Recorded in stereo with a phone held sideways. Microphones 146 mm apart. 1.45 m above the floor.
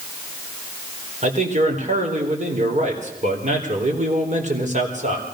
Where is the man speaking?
55° right (ahead or behind), 4 m.